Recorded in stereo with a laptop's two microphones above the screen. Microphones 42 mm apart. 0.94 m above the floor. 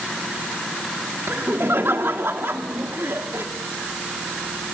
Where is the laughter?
70° right (ahead or behind), 1.9 m.